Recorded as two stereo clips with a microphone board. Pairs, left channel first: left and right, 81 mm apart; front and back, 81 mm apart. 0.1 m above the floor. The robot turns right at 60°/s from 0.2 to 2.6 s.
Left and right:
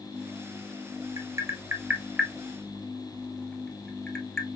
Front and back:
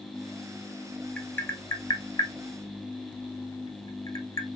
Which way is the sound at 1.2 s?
70° right.